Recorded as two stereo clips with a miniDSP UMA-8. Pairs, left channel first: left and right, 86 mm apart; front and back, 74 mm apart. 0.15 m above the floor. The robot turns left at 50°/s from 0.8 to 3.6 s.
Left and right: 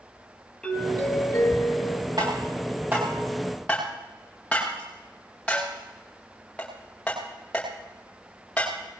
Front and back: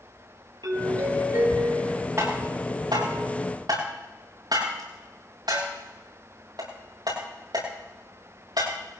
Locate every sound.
0.6 s a doorbell: 170° left, 5 m; by 2.1 s 105° left, 5 m
2.2 s tapping: 120° right, 8 m; by 8.7 s 165° left, 8 m